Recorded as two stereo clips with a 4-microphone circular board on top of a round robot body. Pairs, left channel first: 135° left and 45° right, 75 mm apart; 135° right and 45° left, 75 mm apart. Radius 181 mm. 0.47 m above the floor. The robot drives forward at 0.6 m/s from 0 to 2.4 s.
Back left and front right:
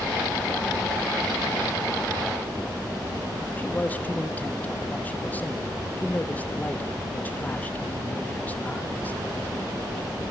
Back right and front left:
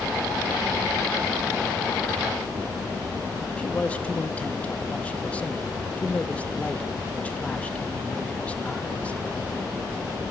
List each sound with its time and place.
3.6 s a man speaking: 175° left, 1.5 m